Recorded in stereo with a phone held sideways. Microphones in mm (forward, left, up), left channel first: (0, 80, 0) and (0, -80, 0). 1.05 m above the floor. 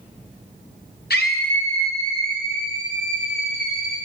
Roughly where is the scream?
Left.